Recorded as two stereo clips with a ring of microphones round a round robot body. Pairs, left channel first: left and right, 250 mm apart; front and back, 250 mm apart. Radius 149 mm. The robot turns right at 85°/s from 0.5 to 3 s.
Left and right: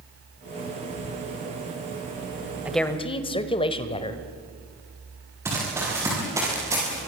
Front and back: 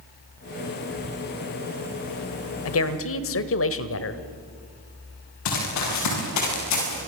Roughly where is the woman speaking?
Ahead.